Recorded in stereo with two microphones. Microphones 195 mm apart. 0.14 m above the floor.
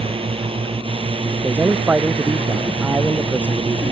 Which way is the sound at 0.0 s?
30° right (ahead or behind).